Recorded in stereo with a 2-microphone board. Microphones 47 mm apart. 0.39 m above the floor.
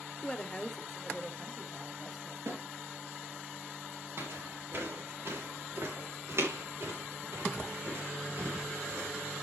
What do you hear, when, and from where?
0.2 s a woman speaking: 20° left (ahead or behind), 0.9 m; by 2.4 s 5° right (ahead or behind), 2.5 m
2.5 s a snare drum: 70° right (ahead or behind), 4.5 m
4.2 s footsteps: 60° right (ahead or behind), 3.5 m; by 9.1 s 70° right (ahead or behind), 6.5 m